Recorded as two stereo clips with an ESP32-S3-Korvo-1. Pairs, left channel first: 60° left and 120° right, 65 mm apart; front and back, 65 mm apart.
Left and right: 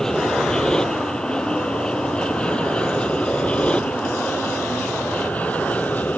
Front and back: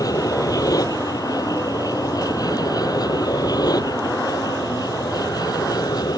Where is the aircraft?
20° right; by 6.2 s 5° right.